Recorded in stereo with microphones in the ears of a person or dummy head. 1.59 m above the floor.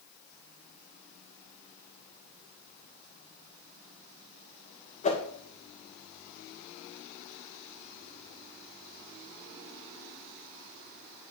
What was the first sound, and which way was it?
A whoosh, 30° left (ahead or behind).